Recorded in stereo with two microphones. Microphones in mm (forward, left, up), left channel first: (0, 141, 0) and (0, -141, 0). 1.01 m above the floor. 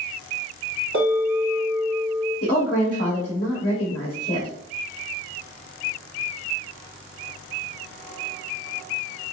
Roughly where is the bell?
Right.